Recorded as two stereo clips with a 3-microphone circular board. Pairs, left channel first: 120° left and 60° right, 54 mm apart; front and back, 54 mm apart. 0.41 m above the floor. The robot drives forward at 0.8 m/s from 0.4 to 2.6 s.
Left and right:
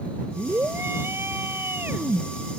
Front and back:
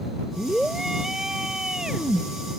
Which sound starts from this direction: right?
A scream, at 0.4 s.